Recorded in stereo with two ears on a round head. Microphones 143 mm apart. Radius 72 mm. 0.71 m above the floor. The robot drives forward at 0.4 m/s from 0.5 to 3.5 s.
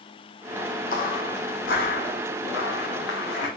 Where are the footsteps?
60° left (ahead or behind), 1.5 m; by 3.5 s 70° left (ahead or behind), 3.5 m.